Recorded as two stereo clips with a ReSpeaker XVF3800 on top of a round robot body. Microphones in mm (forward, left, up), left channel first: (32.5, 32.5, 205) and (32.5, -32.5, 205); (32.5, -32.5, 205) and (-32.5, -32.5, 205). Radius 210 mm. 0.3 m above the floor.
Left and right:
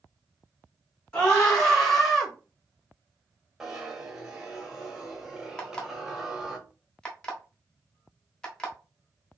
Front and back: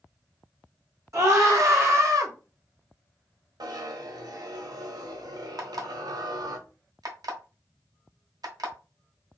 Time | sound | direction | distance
1.1 | a scream | 165° left | 2.5 m
3.6 | a zipper | 170° right | 1.0 m
5.6 | an alarm clock | 165° left | 1.2 m